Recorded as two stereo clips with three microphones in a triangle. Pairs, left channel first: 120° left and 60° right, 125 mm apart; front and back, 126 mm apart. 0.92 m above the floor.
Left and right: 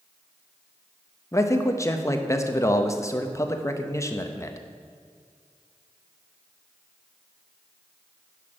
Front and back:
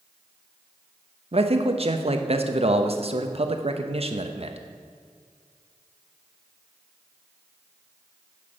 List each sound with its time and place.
1.3 s a man speaking: 175° left, 0.9 m